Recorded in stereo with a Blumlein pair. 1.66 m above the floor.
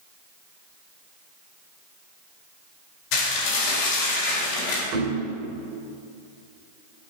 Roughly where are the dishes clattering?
Ahead left.